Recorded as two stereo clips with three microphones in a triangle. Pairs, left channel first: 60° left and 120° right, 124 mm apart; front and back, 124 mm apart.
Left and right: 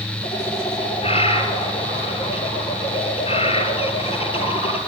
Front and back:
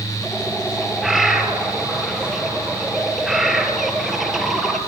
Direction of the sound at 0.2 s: 90° left.